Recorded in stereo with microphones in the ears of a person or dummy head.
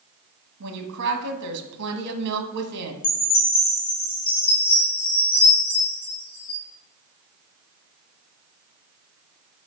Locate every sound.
0.6 s a woman speaking: 60° right (ahead or behind), 1.4 m
3.0 s a chime: 30° left (ahead or behind), 1.9 m